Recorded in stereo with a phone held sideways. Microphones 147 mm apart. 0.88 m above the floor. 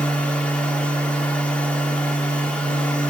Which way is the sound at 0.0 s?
10° left (ahead or behind).